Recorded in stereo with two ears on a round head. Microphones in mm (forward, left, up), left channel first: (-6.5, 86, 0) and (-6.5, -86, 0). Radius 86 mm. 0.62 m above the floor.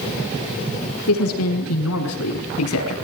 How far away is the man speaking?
About 6 m.